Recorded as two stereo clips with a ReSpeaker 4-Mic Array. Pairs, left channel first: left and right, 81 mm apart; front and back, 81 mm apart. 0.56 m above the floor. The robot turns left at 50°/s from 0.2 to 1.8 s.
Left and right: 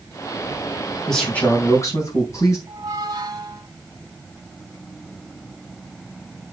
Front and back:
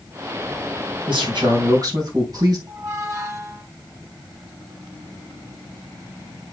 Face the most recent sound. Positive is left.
turn(degrees=-130)